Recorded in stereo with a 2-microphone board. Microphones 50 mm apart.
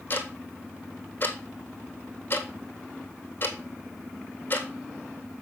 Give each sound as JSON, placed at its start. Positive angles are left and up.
{"t": 0.1, "sound": "ticking", "side_deg": 40, "distance_m": 1.4}